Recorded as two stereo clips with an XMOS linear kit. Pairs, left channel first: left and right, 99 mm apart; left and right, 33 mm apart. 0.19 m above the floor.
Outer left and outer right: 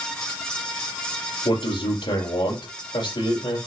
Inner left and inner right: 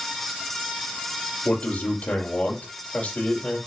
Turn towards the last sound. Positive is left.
turn(degrees=55)  # may be behind; listen again after turning